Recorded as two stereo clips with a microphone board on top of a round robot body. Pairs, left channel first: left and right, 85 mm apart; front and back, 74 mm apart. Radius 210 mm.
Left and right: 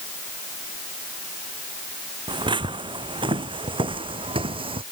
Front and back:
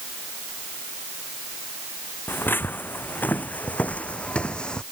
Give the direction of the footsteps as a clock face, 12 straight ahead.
2 o'clock.